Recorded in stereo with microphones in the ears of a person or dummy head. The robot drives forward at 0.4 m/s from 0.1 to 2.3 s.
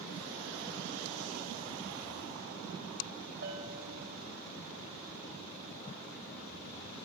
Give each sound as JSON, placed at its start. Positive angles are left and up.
{"t": 3.4, "sound": "a bell", "side_deg": -60, "distance_m": 5.5}